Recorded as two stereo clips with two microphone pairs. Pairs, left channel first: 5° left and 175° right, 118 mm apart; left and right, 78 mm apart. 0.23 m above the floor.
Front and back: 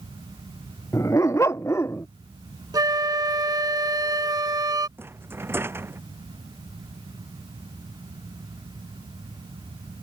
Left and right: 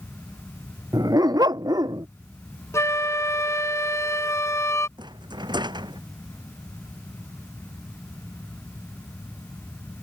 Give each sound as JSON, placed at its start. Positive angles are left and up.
{"t": 0.9, "sound": "a dog barking", "azimuth_deg": -60}
{"t": 2.7, "sound": "a flute", "azimuth_deg": 130}
{"t": 5.0, "sound": "a rattle", "azimuth_deg": -105}